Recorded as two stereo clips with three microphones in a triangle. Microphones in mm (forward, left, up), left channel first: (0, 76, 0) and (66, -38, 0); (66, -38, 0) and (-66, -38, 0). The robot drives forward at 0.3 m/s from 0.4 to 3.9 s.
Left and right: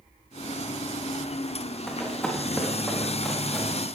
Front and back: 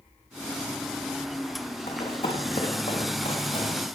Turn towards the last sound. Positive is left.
turn(degrees=35)